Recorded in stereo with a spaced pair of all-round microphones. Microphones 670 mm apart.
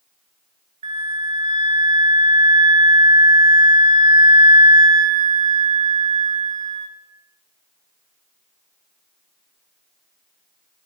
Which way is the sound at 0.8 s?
45° right (ahead or behind).